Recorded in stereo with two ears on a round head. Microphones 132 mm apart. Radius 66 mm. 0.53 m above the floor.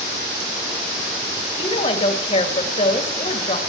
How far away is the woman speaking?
About 3 m.